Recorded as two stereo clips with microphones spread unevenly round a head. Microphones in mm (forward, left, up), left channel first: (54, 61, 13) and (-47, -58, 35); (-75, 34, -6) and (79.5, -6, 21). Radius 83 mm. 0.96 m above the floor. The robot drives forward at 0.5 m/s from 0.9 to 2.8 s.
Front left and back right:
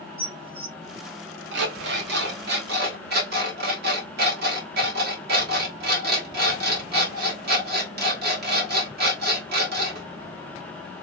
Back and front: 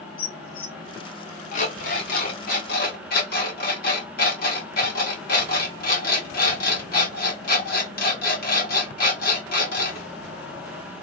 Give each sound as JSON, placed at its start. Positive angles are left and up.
{"t": 0.2, "sound": "dishes clattering", "azimuth_deg": 175, "distance_m": 1.1}
{"t": 1.5, "sound": "an alarm clock", "azimuth_deg": -145, "distance_m": 1.1}